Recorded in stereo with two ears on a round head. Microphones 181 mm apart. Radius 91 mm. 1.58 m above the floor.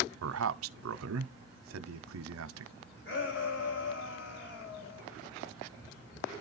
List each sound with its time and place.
0.2 s a man speaking: 80° right, 0.7 m
3.0 s a shout: 65° left (ahead or behind), 9.5 m